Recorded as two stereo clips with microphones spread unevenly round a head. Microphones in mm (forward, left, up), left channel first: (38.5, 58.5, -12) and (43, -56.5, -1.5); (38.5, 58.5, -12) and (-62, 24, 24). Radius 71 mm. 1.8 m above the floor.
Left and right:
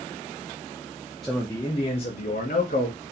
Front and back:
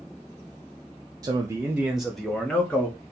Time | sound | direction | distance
1.2 | a man speaking | 175° right | 0.5 m